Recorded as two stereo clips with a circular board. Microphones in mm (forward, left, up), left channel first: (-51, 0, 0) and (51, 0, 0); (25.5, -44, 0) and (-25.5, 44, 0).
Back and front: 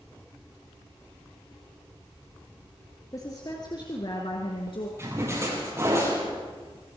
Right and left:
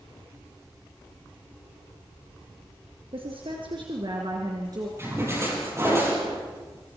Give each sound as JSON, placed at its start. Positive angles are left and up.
{"t": 3.1, "sound": "a woman speaking", "azimuth_deg": 130, "distance_m": 3.5}
{"t": 5.0, "sound": "a splash", "azimuth_deg": 60, "distance_m": 8.0}